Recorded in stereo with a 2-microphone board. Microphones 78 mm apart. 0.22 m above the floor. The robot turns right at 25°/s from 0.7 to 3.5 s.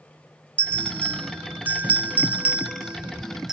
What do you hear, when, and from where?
0.6 s a bell: 25° right (ahead or behind), 0.6 m; by 3.5 s 5° right (ahead or behind), 0.6 m